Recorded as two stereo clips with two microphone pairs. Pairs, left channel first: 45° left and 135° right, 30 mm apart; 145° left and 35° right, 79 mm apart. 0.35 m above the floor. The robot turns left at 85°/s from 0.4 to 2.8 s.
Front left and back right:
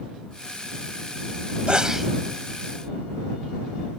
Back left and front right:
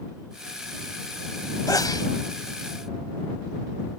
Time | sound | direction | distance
1.7 | a sneeze | straight behind | ?